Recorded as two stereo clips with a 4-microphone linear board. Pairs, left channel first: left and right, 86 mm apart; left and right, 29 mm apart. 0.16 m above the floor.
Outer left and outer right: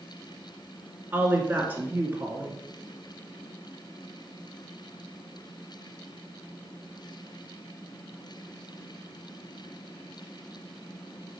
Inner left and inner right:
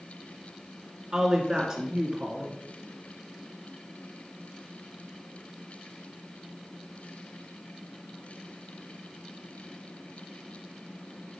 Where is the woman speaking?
20° right (ahead or behind), 1.7 m.